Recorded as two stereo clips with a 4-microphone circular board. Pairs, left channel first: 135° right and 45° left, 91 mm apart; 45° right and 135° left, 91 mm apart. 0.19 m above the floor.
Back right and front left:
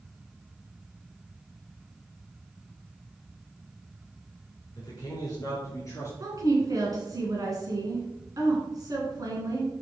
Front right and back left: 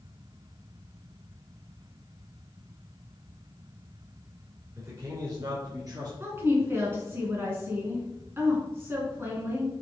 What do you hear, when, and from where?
4.8 s a man speaking: 175° right, 3.5 m; by 6.1 s 175° left, 4 m
6.2 s a woman speaking: 80° left, 2.5 m